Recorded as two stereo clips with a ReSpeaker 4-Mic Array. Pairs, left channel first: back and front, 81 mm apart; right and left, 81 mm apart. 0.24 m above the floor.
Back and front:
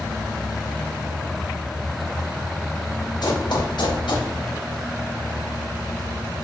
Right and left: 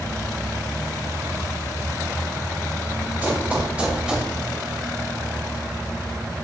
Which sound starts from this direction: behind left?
Running footsteps, at 3.2 s.